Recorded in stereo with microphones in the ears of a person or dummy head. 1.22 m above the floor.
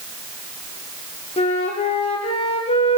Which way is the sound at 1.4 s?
30° left (ahead or behind).